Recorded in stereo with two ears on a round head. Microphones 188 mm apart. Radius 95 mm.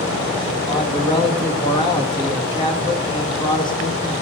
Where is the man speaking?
25° left (ahead or behind), 1.6 m.